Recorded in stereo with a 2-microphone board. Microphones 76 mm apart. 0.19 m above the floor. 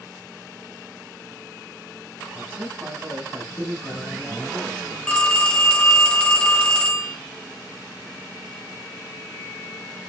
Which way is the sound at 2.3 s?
40° right (ahead or behind).